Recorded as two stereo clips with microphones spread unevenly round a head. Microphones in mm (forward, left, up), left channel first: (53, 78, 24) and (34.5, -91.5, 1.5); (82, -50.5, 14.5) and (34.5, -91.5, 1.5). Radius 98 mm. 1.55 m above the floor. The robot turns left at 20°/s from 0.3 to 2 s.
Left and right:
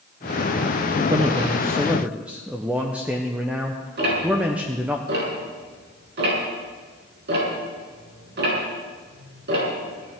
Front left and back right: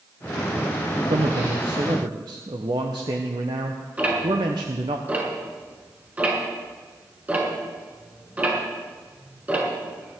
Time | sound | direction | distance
1.1 | a man speaking | 165° right | 0.8 m
4.0 | ticking | 70° right | 6 m